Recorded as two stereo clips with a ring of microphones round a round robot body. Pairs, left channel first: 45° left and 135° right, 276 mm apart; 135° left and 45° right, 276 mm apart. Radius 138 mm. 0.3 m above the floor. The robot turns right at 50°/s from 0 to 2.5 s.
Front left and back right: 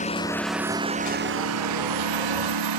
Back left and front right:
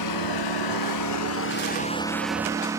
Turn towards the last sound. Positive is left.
turn(degrees=-125)